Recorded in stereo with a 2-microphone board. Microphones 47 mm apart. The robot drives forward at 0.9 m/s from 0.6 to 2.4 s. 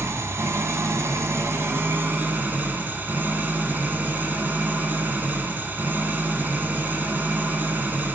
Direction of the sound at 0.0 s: 75° right (ahead or behind).